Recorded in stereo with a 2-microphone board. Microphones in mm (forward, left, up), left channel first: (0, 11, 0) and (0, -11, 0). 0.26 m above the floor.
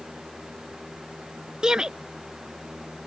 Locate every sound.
1.6 s a shout: 35° right (ahead or behind)